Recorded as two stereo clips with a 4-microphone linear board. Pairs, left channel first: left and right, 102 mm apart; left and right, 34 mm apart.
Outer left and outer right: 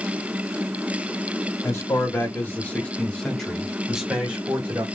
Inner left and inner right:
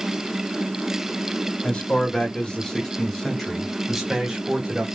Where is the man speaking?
30° left (ahead or behind), 2.0 m; by 4.8 s 25° right (ahead or behind), 1.5 m.